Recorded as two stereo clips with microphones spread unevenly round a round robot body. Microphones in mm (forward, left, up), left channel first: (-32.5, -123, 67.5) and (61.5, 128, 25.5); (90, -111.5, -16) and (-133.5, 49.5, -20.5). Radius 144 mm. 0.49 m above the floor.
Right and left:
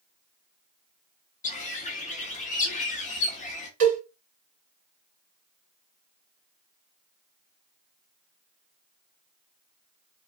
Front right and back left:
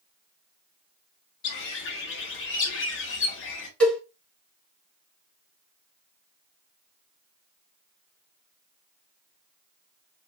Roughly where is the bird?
Ahead right.